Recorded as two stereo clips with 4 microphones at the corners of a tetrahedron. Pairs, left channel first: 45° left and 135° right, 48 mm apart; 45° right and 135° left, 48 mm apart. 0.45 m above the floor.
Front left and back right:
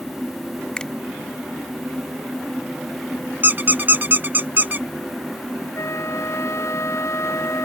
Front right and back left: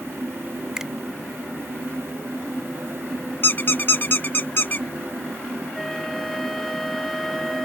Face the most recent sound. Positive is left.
turn(degrees=40)